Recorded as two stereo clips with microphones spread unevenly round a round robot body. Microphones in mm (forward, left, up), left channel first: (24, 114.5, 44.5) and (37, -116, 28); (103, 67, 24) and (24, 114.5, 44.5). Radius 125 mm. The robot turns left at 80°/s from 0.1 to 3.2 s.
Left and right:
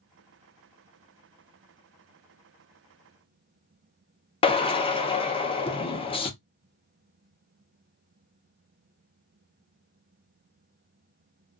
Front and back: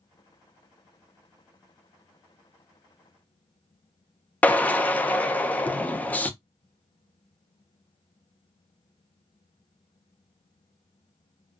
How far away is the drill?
About 0.6 m.